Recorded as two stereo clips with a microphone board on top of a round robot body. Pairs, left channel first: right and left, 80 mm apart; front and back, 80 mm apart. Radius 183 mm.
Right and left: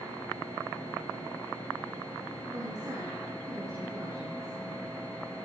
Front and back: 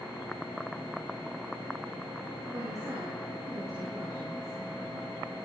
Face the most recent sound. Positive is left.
turn(degrees=135)